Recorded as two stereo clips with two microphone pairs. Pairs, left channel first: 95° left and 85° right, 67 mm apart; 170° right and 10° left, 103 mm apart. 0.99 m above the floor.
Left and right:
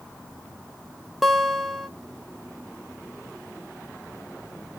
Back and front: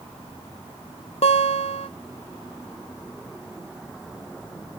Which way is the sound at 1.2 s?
170° right.